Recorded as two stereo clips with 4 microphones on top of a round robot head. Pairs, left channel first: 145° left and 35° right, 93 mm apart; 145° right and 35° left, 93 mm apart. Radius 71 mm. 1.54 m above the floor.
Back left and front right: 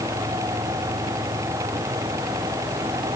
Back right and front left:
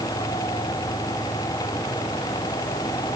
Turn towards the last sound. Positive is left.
No sound to turn to.